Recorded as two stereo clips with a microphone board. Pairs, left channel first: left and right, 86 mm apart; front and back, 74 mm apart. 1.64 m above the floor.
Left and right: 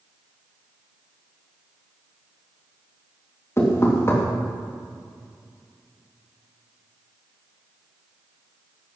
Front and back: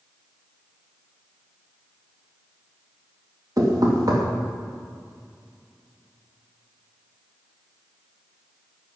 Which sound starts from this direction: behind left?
Knocking, at 3.6 s.